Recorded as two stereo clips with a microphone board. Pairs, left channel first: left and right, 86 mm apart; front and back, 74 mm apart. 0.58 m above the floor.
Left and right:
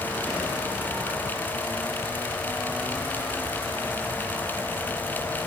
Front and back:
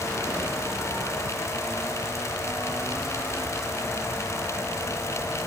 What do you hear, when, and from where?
Only background noise.